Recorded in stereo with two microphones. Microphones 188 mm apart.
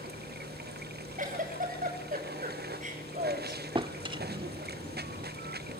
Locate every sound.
0.0 s running water: 60° right (ahead or behind), 0.7 m
1.2 s a giggle: 45° right (ahead or behind), 7 m
3.8 s a drawer: 25° right (ahead or behind), 0.9 m